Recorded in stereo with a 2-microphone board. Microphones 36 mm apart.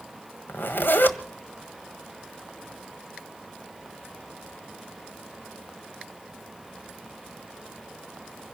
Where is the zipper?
75° left (ahead or behind), 1.3 m.